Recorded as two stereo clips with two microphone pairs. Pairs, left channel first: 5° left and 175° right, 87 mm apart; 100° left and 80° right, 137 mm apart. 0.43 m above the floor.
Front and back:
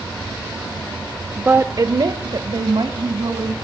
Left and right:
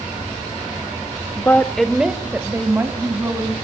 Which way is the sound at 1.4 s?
125° left.